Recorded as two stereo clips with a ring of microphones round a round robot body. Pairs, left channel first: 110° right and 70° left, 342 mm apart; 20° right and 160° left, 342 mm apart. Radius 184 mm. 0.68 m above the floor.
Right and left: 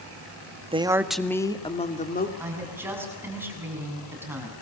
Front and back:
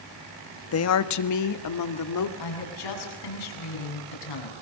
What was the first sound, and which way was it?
A woman speaking, straight ahead.